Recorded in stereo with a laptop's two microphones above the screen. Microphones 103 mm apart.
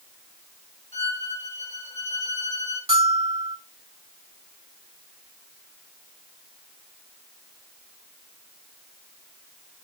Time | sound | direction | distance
0.9 | a violin | 75° left (ahead or behind) | 2.5 m
2.9 | a bell | 70° right (ahead or behind) | 5 m